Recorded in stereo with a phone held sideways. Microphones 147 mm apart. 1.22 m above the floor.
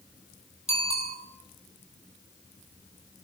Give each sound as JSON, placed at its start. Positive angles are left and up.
{"t": 0.7, "sound": "a bicycle bell", "side_deg": -45, "distance_m": 9.0}